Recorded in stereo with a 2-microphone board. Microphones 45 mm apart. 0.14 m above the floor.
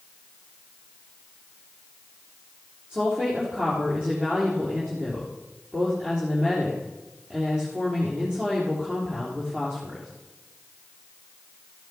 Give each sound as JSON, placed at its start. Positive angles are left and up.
{"t": 2.9, "sound": "a woman speaking", "side_deg": -20, "distance_m": 4.0}